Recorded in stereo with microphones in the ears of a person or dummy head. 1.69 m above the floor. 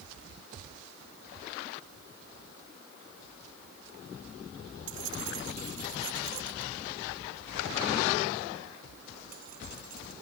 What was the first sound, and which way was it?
Keys jangling, 80° right.